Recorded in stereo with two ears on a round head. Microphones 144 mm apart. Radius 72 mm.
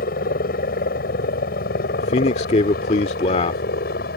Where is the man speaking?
40° left (ahead or behind).